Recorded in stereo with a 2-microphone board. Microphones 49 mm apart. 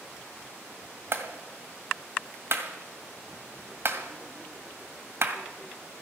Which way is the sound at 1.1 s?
55° right (ahead or behind).